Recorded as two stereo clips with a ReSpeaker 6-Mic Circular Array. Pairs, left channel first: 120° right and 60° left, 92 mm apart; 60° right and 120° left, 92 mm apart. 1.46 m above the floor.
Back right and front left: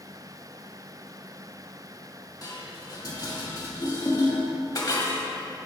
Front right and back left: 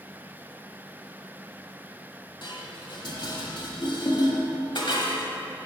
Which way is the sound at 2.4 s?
80° right.